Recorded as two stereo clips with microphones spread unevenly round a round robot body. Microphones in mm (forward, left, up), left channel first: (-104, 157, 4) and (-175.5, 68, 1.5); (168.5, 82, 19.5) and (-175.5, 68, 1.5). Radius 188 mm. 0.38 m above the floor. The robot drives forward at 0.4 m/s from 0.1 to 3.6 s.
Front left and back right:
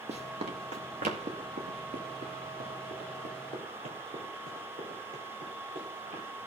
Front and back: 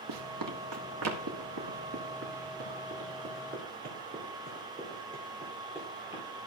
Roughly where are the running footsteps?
Behind right.